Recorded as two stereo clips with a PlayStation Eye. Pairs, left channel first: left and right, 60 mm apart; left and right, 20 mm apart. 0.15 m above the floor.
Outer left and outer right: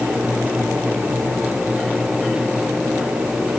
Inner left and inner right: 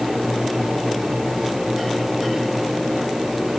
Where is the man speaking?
No man speaking in this recording.